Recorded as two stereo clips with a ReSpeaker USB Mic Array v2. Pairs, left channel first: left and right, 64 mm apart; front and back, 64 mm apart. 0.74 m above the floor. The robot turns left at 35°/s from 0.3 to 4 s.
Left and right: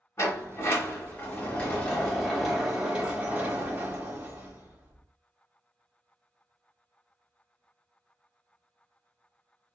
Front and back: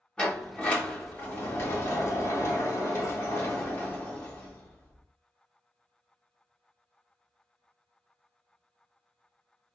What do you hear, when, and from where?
0.2 s a sliding door: 70° left, 1.3 m; by 5.0 s 60° right, 1.3 m